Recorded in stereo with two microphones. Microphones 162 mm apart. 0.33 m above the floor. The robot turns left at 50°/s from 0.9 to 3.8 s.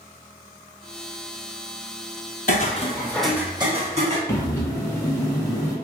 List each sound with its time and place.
2.5 s footsteps: 60° left (ahead or behind), 0.5 m; by 4.2 s 50° right (ahead or behind), 1.1 m
4.3 s breathing: 20° left (ahead or behind), 1.0 m